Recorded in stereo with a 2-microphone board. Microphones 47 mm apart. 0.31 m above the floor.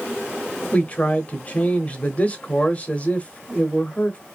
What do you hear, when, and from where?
0.7 s a man speaking: 25° left (ahead or behind), 0.9 m